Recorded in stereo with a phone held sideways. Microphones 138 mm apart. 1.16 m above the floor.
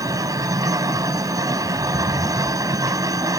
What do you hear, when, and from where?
0.0 s a machine running: 25° right (ahead or behind)